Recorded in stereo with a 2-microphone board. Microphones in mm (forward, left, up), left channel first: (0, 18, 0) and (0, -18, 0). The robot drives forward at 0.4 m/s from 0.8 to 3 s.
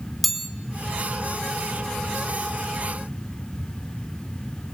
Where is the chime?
Centre (ahead or behind), 1.0 m.